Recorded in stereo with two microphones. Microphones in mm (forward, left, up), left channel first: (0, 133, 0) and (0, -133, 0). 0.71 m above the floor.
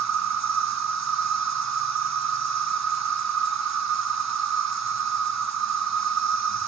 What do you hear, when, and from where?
0.0 s an insect: 70° right (ahead or behind), 0.8 m